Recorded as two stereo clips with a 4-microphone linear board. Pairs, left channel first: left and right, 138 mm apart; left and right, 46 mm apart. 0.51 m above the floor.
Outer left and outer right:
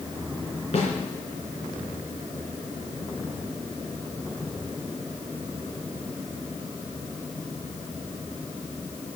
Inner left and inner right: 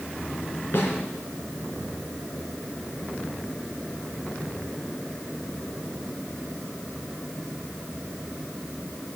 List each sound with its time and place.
0.7 s a snare drum: 50° left (ahead or behind), 3 m